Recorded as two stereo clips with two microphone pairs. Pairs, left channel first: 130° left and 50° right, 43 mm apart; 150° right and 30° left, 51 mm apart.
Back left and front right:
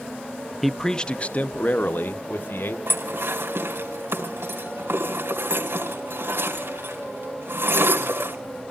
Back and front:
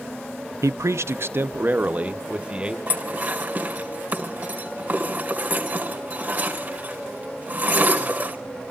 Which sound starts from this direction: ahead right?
Dishes clattering, at 2.9 s.